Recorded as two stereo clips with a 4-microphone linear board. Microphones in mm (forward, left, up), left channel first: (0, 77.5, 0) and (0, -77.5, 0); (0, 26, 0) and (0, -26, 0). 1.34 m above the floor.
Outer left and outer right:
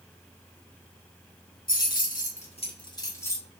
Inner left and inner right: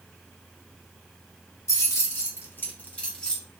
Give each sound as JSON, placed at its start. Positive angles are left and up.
{"t": 1.7, "sound": "keys jangling", "side_deg": 70, "distance_m": 1.3}